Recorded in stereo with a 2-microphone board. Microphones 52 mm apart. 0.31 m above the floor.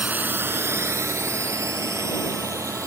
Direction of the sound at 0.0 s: 30° right (ahead or behind).